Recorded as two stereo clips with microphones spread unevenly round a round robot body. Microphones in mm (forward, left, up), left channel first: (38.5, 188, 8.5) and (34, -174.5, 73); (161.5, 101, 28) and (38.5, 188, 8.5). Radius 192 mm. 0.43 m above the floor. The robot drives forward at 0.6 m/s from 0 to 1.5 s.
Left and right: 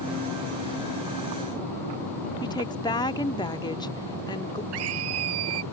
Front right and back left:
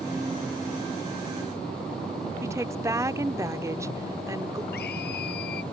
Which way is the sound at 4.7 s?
70° right.